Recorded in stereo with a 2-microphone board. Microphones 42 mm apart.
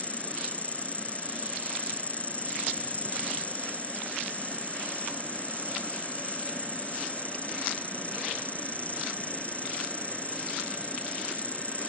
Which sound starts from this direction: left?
An insect, at 0.0 s.